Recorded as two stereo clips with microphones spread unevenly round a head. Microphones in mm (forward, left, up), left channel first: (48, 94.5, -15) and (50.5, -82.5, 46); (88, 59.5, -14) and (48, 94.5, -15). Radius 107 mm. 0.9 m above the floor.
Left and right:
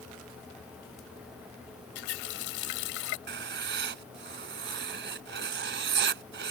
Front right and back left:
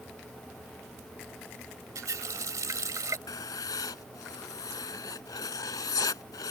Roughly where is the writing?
Right.